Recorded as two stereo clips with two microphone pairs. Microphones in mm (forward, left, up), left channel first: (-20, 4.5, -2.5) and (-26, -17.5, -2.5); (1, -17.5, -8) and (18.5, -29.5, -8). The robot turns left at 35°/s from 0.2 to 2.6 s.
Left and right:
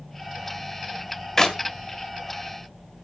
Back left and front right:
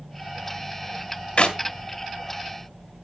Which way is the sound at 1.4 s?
135° left.